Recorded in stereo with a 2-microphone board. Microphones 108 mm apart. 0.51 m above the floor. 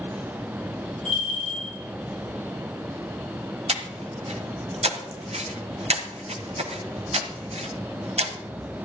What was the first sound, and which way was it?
A bell, 70° right (ahead or behind).